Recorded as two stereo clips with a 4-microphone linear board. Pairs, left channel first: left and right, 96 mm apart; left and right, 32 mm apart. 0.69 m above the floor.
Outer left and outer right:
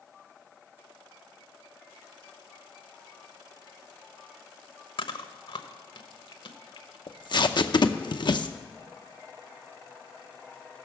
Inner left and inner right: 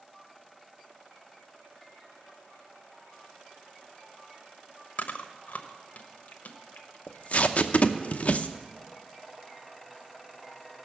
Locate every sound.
5.0 s chewing: 60° left (ahead or behind), 1.1 m
7.1 s tape being pulled: 50° left (ahead or behind), 0.7 m